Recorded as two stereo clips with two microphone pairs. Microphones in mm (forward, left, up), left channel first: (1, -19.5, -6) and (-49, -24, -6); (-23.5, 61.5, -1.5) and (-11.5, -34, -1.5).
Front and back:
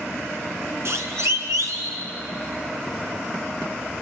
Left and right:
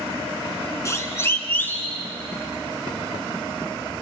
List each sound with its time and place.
0.8 s a siren: 155° left, 3 m; by 2.0 s 170° left, 3.5 m